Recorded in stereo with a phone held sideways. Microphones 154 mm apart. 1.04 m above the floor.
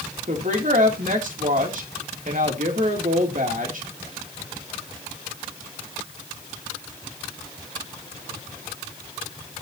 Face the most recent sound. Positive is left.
turn(degrees=-60)  # may be behind; listen again after turning